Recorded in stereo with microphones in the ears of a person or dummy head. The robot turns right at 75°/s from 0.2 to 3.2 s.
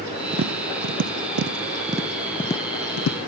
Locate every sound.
0.3 s tapping: 35° right (ahead or behind), 0.5 m; by 3.2 s 70° left (ahead or behind), 0.5 m